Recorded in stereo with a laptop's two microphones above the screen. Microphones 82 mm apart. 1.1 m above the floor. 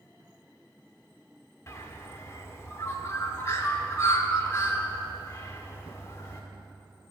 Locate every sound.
1.7 s a bird: 35° left (ahead or behind), 1.1 m